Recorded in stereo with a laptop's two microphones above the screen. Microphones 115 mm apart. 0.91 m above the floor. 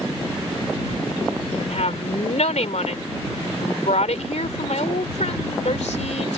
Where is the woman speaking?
85° left.